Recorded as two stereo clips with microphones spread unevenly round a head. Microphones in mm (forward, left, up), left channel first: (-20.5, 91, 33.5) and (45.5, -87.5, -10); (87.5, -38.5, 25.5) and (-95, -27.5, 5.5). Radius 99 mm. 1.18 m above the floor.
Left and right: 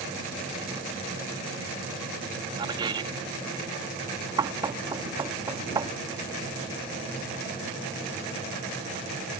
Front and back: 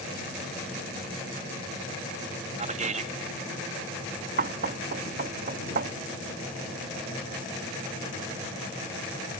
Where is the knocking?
145° right.